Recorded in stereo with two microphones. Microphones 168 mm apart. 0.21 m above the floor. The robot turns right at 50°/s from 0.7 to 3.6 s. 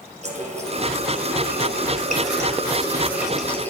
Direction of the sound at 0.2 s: 130° right.